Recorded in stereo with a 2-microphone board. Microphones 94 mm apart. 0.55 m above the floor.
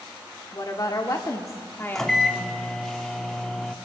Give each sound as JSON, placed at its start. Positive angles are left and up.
{"t": 0.5, "sound": "a woman speaking", "side_deg": 45, "distance_m": 1.3}
{"t": 1.9, "sound": "a microwave", "side_deg": 5, "distance_m": 0.7}